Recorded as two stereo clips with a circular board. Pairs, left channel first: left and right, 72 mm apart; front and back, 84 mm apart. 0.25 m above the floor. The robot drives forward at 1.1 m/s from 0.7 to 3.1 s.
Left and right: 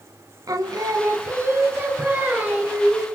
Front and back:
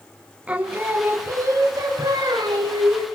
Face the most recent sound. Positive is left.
turn(degrees=-160)